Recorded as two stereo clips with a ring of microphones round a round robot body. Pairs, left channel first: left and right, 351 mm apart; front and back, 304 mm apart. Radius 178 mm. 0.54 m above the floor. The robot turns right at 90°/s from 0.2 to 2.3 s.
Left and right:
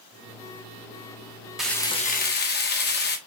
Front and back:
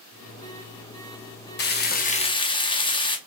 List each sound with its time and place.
1.6 s frying: 5° right, 0.8 m; by 3.2 s 60° left, 0.8 m